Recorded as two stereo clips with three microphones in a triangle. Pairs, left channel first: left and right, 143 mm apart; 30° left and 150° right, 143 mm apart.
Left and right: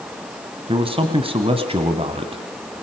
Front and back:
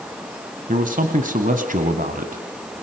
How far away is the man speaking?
About 2 m.